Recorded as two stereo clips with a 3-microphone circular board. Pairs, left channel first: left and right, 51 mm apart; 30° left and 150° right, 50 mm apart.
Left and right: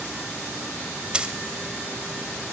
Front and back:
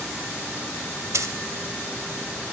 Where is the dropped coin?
160° right, 0.7 m.